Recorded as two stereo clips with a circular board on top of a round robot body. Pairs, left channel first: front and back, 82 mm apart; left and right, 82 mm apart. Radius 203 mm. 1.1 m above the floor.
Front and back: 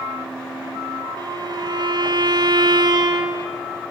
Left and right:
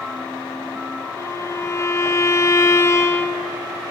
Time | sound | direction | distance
1.2 | a violin | 145° left | 0.7 m